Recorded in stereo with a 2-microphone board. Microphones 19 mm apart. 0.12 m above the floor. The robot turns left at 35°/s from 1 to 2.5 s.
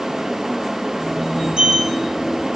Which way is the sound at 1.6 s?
60° right (ahead or behind).